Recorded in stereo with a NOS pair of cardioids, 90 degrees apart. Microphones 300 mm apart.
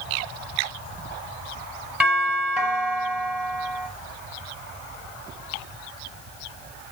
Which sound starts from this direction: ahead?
A doorbell, at 2.0 s.